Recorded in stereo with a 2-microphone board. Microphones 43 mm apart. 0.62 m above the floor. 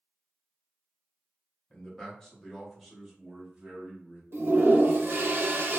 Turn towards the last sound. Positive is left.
turn(degrees=-70)  # may be behind; listen again after turning